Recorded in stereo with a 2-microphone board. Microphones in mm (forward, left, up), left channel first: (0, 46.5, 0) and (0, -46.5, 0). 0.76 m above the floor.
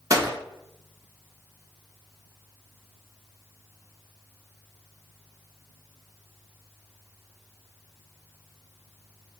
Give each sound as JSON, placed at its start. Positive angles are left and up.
{"t": 0.1, "sound": "a gunshot", "side_deg": -35, "distance_m": 0.8}